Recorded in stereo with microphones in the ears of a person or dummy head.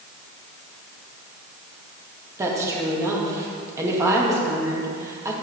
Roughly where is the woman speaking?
Centre.